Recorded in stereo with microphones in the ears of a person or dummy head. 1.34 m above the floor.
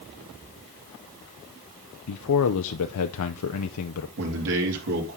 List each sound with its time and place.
2.1 s a man speaking: 85° left, 0.6 m
4.2 s a man speaking: 65° right (ahead or behind), 3 m